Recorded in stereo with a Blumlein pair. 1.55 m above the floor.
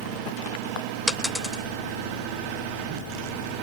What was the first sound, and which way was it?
A dropped coin, 5° left.